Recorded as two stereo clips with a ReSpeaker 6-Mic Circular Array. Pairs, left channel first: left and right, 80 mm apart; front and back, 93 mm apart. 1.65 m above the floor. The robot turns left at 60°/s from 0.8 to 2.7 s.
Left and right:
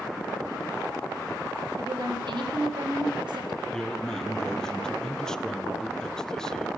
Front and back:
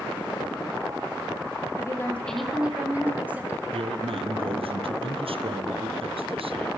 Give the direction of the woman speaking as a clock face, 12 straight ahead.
2 o'clock.